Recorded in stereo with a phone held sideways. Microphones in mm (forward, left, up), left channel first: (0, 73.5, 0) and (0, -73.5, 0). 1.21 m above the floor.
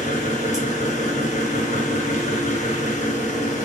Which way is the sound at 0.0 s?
50° left (ahead or behind).